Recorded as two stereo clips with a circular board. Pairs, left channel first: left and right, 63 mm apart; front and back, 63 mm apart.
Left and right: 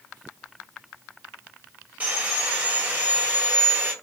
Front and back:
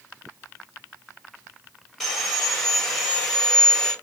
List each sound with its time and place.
2.0 s sawing: 75° right, 1.5 m